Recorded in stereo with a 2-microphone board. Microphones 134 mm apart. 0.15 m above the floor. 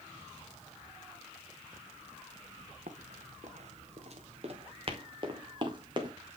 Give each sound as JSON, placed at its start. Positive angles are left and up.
{"t": 2.9, "sound": "running footsteps", "side_deg": -75, "distance_m": 1.6}